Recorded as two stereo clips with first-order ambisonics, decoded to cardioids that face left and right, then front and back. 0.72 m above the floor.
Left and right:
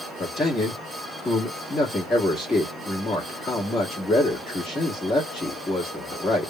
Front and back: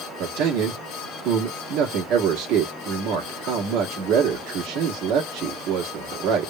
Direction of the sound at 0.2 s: 165° left.